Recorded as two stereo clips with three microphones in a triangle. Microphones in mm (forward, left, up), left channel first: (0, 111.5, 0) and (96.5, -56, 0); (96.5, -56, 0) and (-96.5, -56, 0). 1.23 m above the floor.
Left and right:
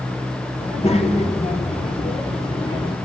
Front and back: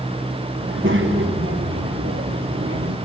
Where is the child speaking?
175° left, 3.5 m; by 3.0 s 175° right, 1.9 m.